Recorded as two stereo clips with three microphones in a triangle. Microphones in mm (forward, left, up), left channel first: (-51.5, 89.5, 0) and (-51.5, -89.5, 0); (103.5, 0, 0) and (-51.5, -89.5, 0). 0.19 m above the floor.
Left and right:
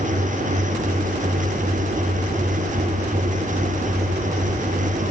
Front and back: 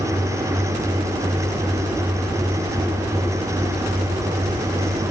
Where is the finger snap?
No finger snap in this recording.